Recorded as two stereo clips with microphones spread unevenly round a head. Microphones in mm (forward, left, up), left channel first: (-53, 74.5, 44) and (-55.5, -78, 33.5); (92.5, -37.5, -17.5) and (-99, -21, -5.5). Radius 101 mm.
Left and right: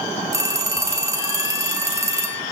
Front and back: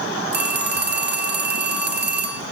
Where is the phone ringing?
160° right, 1.8 m.